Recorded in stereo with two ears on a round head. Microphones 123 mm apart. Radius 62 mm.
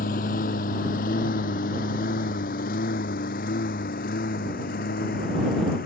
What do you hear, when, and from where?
0.0 s a lawn mower: 70° left (ahead or behind); by 5.9 s 75° left (ahead or behind)